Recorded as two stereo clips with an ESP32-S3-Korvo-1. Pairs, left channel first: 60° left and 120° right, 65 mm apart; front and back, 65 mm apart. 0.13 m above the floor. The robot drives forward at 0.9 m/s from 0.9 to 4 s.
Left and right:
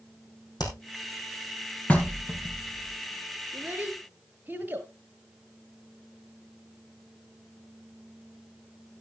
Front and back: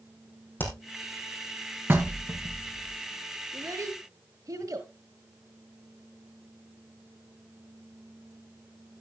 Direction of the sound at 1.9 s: 125° left.